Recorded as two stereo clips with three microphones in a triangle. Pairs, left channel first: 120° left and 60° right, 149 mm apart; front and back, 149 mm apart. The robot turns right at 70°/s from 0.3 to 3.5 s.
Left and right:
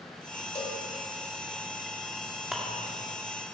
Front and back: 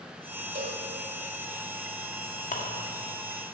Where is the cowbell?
170° left, 1.8 m; by 0.8 s 170° right, 1.8 m.